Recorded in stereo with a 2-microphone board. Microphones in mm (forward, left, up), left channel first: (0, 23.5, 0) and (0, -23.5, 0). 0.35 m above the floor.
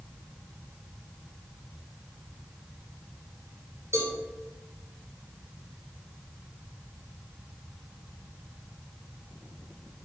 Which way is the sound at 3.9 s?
70° right (ahead or behind).